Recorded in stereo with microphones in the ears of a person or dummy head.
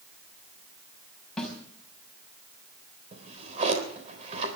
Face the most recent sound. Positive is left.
turn(degrees=-35)  # may be behind; listen again after turning